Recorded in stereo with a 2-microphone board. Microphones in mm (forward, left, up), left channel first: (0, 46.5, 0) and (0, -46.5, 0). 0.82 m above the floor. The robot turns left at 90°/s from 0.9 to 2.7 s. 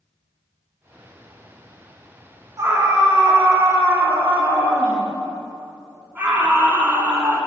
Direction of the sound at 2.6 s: 35° right (ahead or behind).